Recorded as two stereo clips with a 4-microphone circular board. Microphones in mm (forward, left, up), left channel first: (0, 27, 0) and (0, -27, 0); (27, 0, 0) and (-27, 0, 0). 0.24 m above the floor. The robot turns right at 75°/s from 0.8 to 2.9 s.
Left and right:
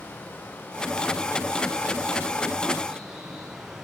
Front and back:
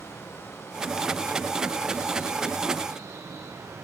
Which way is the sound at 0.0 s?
35° left.